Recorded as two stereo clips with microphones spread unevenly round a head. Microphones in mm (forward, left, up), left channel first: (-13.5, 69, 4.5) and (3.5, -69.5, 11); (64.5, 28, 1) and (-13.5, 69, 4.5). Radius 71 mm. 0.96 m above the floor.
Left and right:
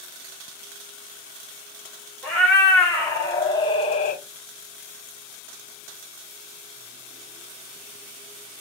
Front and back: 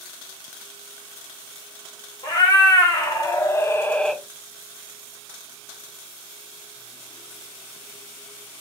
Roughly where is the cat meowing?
Ahead.